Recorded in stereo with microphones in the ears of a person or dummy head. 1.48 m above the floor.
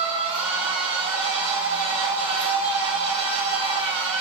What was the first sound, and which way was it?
A machine running, 40° right (ahead or behind).